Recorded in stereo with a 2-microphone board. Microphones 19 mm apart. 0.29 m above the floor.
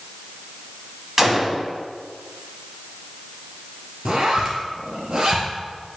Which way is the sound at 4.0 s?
45° right (ahead or behind).